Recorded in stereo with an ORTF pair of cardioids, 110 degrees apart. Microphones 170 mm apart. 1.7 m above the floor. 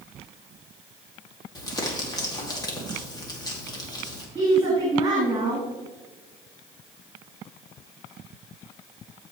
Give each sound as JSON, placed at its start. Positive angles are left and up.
{"t": 1.6, "sound": "crumpling", "azimuth_deg": 25, "distance_m": 2.5}
{"t": 4.3, "sound": "a woman speaking", "azimuth_deg": -25, "distance_m": 3.5}